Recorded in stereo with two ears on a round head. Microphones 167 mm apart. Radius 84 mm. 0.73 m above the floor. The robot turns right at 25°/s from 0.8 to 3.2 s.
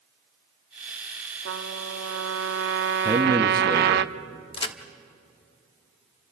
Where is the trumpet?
100° right, 0.6 m; by 4.0 s 60° right, 0.6 m.